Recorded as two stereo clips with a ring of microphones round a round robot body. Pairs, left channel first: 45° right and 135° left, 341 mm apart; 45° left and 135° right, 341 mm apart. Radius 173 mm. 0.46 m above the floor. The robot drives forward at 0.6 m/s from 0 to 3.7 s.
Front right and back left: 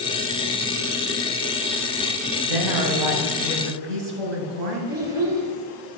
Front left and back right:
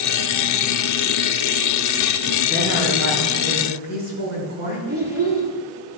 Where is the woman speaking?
160° left, 4 m.